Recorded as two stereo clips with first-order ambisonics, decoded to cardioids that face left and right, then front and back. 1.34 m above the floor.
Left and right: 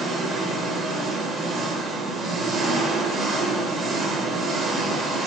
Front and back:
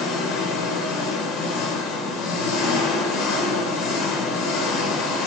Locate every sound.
0.0 s an engine running: 25° right, 0.8 m